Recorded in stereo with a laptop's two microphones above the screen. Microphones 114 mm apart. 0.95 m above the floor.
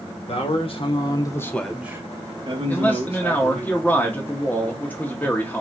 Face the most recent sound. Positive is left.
turn(degrees=15)  # may be behind; listen again after turning